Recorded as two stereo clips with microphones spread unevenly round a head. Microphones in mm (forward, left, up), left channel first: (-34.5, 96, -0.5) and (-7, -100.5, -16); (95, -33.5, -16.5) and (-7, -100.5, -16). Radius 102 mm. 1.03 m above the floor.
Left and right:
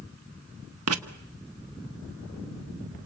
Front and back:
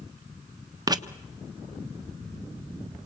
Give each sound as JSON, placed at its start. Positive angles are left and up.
{"t": 0.9, "sound": "writing", "azimuth_deg": -90, "distance_m": 1.5}